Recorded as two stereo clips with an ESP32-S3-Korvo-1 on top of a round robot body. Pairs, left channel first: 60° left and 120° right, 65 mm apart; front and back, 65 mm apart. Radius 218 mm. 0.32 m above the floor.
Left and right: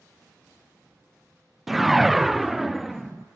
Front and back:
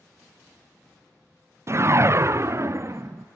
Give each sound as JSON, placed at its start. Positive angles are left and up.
{"t": 1.7, "sound": "a whoosh", "azimuth_deg": 155, "distance_m": 0.6}